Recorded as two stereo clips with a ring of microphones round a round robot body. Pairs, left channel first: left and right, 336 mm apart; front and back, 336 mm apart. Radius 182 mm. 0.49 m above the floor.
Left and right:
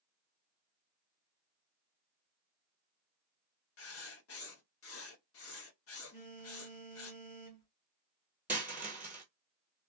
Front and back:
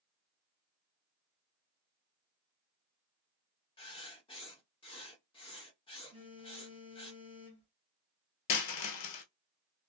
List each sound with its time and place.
3.8 s writing: 70° left, 0.8 m
6.1 s a phone buzzing: 95° left, 1.7 m
8.5 s a dropped coin: 5° right, 0.8 m